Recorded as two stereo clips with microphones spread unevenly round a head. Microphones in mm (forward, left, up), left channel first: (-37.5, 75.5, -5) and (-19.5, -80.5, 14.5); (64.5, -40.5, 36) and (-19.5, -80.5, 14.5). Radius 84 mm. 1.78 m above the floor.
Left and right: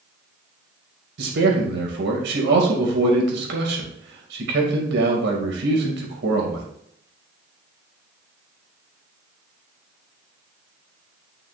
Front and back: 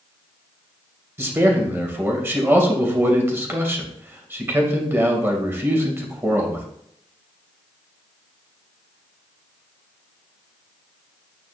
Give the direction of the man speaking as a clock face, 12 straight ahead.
3 o'clock.